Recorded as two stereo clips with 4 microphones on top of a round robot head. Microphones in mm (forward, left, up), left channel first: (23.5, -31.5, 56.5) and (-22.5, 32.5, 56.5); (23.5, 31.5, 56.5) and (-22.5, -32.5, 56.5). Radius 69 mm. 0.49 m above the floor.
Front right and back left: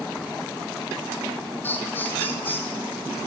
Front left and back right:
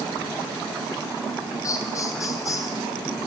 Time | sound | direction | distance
1.6 | laughter | 10° left | 2.5 m